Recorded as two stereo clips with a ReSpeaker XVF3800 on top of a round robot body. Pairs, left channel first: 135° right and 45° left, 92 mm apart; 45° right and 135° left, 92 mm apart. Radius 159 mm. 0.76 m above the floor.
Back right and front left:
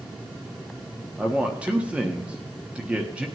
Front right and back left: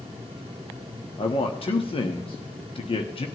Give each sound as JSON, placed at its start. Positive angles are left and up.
{"t": 1.2, "sound": "a man speaking", "azimuth_deg": -35, "distance_m": 1.2}